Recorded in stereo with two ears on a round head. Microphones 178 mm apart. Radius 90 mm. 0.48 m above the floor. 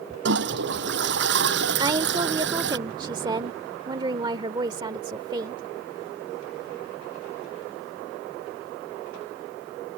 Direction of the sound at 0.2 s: 65° right (ahead or behind).